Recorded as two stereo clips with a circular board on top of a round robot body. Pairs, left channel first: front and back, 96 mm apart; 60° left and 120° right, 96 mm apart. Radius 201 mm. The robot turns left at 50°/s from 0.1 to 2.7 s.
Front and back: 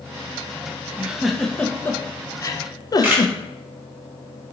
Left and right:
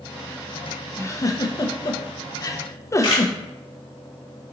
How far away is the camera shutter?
About 0.9 m.